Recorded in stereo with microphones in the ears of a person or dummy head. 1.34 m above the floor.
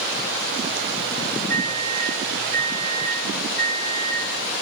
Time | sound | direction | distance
1.5 | a microwave | 10° left (ahead or behind) | 6 m